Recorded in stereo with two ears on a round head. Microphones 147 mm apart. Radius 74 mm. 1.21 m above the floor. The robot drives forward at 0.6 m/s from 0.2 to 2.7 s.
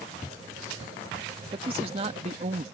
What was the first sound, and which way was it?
A man speaking, 35° right (ahead or behind).